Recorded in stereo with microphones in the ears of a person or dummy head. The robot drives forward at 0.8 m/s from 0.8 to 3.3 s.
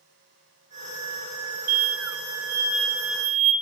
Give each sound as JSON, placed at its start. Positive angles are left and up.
{"t": 1.7, "sound": "an explosion", "side_deg": -75, "distance_m": 1.0}